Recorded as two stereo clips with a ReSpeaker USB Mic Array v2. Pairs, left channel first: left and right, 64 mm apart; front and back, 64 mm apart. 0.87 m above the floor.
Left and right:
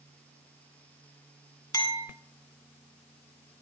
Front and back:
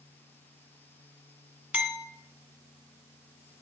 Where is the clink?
110° left, 2.0 m.